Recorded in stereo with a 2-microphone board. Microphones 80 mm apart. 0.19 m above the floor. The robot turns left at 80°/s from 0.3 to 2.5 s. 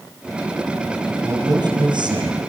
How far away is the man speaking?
About 4 m.